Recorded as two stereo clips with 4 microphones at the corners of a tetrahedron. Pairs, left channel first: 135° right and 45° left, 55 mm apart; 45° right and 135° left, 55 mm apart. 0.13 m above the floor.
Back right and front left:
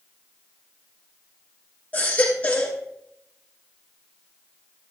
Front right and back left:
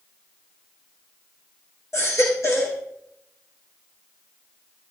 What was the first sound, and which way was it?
A baby crying, 70° right.